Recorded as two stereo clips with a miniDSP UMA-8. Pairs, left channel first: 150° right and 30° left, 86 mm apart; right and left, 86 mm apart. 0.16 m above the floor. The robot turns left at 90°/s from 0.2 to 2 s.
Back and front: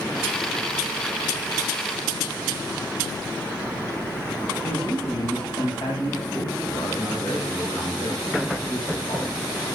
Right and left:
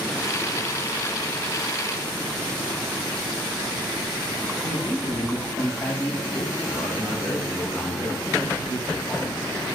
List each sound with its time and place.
4.6 s a man speaking: 160° right, 7 m